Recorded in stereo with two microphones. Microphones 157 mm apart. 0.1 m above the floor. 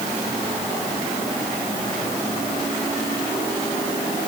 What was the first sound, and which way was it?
Only background noise.